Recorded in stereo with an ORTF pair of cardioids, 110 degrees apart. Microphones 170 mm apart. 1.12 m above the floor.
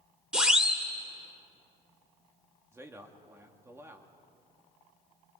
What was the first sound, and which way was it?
A siren, 5° right.